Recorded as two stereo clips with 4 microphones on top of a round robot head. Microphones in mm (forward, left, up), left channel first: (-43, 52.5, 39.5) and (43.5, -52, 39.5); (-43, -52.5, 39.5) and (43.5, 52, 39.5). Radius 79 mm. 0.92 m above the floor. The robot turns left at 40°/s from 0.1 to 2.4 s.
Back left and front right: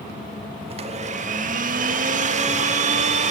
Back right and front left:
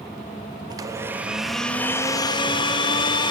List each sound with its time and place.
0.7 s a blender: 10° right, 1.3 m; by 3.3 s 75° right, 1.3 m